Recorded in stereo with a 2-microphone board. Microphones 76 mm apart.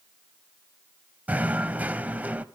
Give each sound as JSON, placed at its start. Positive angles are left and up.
{"t": 1.3, "sound": "knocking", "side_deg": -20, "distance_m": 0.6}